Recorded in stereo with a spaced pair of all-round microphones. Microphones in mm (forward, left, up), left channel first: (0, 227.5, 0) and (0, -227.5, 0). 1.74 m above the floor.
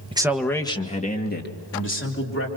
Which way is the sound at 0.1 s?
10° right (ahead or behind).